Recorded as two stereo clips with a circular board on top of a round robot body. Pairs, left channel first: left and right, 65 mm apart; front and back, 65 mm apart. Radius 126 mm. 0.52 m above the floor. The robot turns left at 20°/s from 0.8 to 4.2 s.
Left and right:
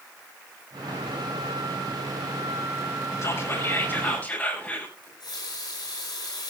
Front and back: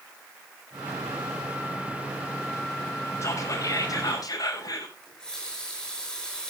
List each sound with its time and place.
3.2 s whispering: 45° left, 6.5 m; by 5.0 s 25° left, 6.5 m
5.0 s a running tap: 85° left, 8 m